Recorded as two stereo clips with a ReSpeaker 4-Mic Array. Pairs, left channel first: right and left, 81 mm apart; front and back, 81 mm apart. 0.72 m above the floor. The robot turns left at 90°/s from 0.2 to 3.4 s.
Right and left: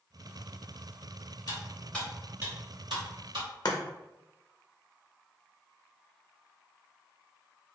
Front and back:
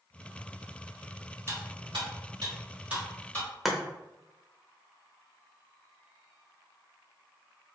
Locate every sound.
1.5 s cutlery clinking: 125° right, 2.0 m; by 3.5 s 60° left, 2.0 m
3.6 s chopping: 95° right, 0.6 m